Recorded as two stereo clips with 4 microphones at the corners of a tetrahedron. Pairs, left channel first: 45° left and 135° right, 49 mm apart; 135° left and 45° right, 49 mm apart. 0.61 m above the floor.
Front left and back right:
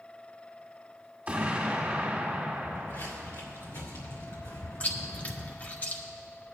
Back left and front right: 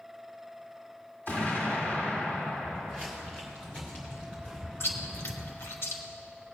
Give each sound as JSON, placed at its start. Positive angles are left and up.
{"t": 1.3, "sound": "an explosion", "azimuth_deg": 170, "distance_m": 1.9}
{"t": 2.6, "sound": "footsteps", "azimuth_deg": 70, "distance_m": 3.5}
{"t": 4.8, "sound": "chewing", "azimuth_deg": 105, "distance_m": 1.0}